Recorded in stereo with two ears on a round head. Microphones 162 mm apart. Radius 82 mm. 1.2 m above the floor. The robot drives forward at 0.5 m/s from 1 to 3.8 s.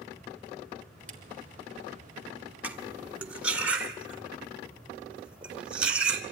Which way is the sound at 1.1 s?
5° left (ahead or behind).